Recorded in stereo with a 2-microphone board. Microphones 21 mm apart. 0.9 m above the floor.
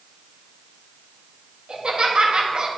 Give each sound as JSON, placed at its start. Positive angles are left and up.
{"t": 1.7, "sound": "laughter", "side_deg": -60, "distance_m": 1.6}